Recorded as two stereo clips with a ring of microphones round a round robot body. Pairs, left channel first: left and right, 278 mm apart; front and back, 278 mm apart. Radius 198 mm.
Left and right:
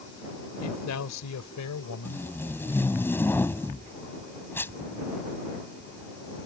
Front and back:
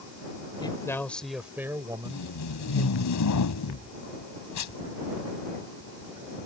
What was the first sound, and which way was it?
A man speaking, 70° left.